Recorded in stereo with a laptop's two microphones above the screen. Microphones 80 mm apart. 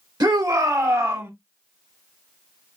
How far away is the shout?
About 2.5 m.